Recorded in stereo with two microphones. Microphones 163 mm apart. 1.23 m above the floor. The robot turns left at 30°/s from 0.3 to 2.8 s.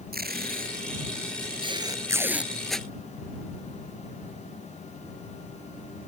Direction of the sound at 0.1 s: 70° right (ahead or behind).